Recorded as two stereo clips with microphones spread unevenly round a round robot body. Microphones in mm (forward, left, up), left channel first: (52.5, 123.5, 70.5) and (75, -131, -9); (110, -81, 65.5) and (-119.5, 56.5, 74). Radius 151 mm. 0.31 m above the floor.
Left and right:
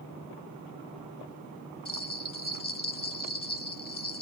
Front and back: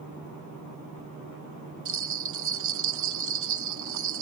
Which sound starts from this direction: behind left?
A bell, at 1.9 s.